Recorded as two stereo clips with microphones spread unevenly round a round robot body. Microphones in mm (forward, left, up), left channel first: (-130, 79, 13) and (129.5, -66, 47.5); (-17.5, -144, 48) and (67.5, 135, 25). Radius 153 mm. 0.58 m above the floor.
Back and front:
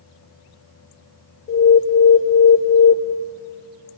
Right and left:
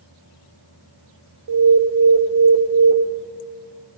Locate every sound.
1.5 s an alarm: 100° left, 1.1 m